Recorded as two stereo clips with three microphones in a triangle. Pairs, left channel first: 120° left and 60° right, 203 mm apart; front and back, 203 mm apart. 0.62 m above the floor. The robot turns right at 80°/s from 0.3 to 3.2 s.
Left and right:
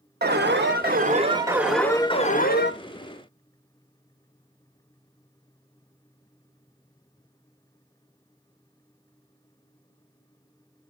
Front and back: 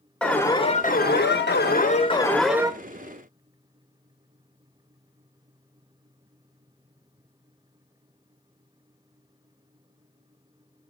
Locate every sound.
0.2 s an alarm: 85° right, 0.8 m; by 2.7 s 110° left, 0.8 m